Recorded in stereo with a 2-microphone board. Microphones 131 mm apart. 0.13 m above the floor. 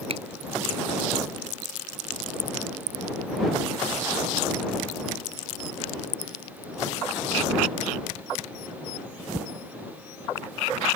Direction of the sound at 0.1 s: 50° right (ahead or behind).